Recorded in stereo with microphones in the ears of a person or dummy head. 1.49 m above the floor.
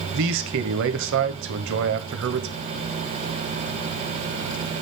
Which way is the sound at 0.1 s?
65° right (ahead or behind).